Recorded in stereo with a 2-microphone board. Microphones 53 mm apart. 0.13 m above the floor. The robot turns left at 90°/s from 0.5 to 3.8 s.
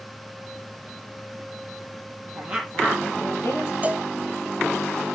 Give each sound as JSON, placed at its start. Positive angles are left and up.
{"t": 2.4, "sound": "a woman speaking", "azimuth_deg": -150, "distance_m": 4.0}
{"t": 3.8, "sound": "a cowbell", "side_deg": -30, "distance_m": 0.6}